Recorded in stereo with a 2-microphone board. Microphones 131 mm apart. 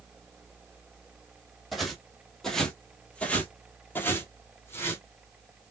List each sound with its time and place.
1.7 s footsteps: centre (ahead or behind), 1.4 m; by 5.0 s 20° left (ahead or behind), 1.3 m